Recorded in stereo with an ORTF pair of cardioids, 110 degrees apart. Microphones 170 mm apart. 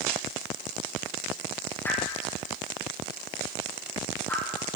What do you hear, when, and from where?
1.8 s a whoosh: 15° left, 6.5 m